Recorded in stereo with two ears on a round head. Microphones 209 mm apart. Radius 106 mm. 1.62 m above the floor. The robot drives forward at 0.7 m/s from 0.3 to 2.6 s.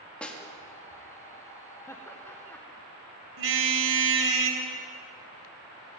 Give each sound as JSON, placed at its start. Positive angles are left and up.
{"t": 0.2, "sound": "a snare drum", "side_deg": 5, "distance_m": 3.0}
{"t": 1.9, "sound": "laughter", "side_deg": 10, "distance_m": 1.6}
{"t": 3.4, "sound": "a car horn", "side_deg": -55, "distance_m": 4.0}